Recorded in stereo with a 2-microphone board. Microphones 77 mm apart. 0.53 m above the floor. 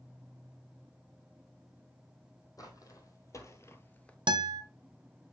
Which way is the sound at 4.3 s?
80° right.